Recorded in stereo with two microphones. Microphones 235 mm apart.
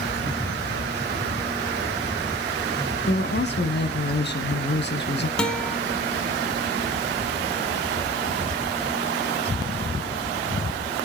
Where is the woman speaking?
45° left (ahead or behind), 1.5 m.